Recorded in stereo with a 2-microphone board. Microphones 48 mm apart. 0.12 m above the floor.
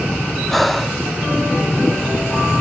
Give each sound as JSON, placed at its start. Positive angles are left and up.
{"t": 0.5, "sound": "breathing", "side_deg": 0}